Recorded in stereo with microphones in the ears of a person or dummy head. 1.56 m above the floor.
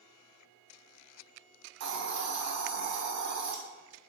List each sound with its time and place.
1.8 s a hiss: 60° right (ahead or behind), 0.5 m